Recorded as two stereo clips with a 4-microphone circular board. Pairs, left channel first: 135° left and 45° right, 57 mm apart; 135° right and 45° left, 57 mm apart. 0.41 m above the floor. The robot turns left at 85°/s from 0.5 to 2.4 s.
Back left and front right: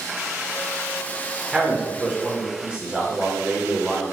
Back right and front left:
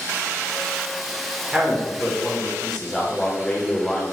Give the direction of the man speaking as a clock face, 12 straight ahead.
12 o'clock.